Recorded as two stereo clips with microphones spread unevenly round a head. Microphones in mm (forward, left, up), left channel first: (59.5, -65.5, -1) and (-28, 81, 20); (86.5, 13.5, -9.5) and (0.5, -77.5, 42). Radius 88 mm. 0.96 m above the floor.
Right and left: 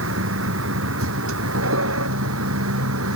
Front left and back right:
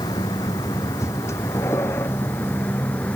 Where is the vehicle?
115° left; by 3.2 s 130° left.